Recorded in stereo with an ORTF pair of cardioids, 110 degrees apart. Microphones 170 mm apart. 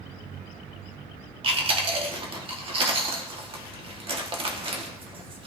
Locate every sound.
1.4 s chewing: 30° right, 1.4 m